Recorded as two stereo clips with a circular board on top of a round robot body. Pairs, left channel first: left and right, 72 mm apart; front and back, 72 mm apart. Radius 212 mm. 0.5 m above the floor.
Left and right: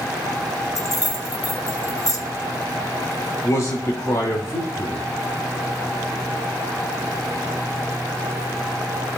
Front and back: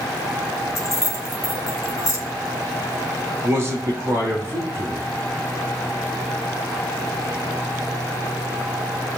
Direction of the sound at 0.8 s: 50° left.